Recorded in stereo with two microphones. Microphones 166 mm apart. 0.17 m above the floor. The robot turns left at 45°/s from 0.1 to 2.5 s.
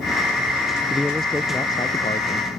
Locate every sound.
0.9 s a man speaking: 165° right; by 2.5 s 120° left